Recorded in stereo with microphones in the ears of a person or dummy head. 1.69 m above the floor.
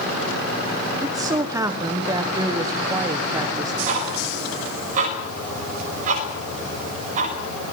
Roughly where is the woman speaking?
Right.